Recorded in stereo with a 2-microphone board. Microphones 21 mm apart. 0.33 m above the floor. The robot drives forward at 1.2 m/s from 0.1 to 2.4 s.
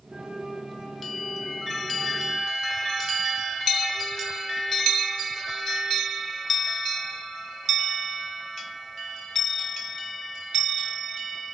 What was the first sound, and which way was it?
A flute, 35° right (ahead or behind).